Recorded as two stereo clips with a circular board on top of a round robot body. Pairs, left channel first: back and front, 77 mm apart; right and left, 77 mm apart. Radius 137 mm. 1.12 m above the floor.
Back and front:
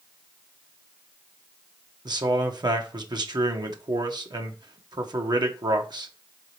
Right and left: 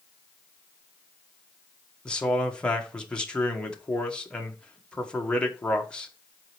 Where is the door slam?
No door slam in this recording.